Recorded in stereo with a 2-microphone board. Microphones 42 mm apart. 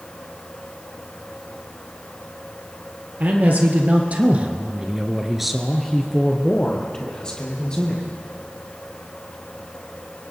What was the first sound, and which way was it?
A man speaking, 40° right (ahead or behind).